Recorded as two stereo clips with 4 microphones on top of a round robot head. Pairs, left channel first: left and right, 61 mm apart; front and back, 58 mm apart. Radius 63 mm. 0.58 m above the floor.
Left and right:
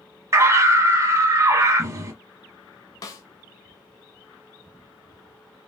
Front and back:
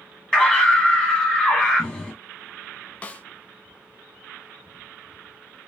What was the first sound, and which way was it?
A scream, 85° right.